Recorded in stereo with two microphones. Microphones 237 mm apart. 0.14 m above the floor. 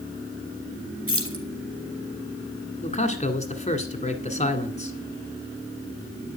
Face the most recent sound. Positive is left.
turn(degrees=30)  # may be behind; listen again after turning